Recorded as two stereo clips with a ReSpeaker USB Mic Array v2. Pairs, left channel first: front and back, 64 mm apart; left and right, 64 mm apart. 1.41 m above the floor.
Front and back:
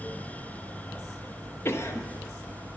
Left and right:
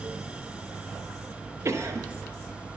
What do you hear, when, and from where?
1.6 s a cough: 45° right, 0.6 m